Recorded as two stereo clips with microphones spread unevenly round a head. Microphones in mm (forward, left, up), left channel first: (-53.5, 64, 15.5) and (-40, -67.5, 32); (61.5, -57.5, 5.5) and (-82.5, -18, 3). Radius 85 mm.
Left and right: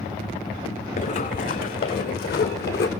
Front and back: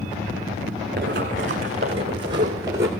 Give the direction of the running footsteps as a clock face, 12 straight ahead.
8 o'clock.